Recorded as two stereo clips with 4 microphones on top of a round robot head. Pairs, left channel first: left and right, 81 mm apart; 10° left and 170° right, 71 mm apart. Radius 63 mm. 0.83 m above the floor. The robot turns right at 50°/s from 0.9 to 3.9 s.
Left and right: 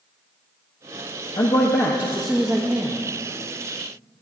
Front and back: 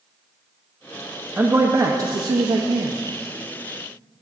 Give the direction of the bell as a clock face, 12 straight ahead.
I don't hear a bell.